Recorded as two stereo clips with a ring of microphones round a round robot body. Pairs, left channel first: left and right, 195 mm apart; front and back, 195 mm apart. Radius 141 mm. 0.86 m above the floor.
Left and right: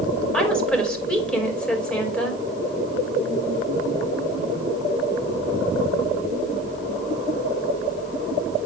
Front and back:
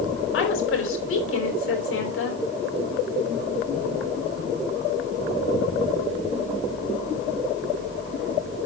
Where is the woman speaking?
5° left, 4.5 m.